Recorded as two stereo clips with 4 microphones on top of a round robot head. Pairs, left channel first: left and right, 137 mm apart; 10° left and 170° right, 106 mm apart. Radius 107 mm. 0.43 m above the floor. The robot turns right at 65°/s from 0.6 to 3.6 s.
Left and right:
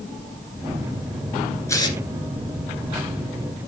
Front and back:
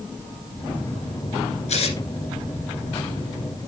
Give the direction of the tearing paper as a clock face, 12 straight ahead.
11 o'clock.